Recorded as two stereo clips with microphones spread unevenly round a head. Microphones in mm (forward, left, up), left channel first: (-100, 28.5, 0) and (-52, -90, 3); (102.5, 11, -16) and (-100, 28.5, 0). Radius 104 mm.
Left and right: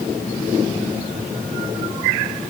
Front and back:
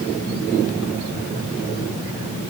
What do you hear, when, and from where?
Only background noise.